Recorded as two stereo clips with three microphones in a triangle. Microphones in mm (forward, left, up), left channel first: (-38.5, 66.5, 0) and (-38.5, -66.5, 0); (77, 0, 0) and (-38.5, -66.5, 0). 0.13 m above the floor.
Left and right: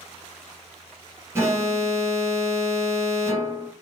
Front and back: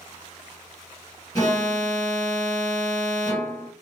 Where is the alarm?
25° right, 1.3 m.